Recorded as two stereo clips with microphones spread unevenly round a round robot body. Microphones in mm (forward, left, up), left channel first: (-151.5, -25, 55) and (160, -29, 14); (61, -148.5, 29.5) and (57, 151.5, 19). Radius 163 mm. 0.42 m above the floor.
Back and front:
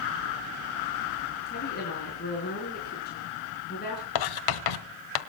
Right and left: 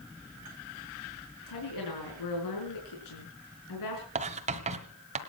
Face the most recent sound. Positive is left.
turn(degrees=160)